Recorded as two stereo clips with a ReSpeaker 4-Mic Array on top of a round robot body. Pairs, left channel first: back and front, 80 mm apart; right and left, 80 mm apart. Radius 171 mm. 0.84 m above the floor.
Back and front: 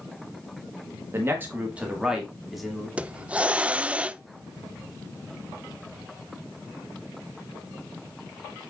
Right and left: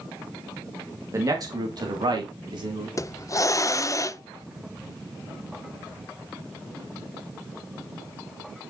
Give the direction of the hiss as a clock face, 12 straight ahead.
2 o'clock.